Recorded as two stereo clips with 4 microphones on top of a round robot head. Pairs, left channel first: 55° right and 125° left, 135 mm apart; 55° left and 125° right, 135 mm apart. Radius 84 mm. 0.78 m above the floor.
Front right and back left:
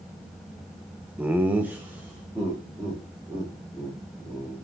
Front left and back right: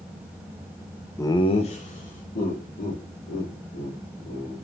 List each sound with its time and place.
1.2 s laughter: 70° left, 0.6 m; by 4.5 s 45° left, 3.5 m